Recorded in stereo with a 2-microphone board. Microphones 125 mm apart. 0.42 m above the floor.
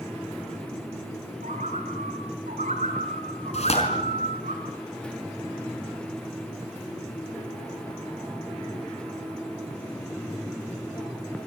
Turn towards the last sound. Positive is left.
turn(degrees=60)  # may be behind; listen again after turning